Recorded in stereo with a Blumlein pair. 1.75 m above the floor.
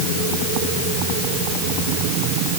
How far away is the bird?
I don't hear a bird.